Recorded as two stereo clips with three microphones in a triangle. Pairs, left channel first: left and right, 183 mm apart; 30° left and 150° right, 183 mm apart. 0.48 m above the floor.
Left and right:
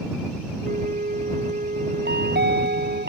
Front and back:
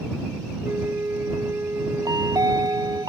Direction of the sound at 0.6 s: 75° right.